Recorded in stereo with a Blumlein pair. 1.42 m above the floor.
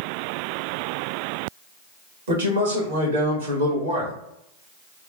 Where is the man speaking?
65° right, 1.6 m.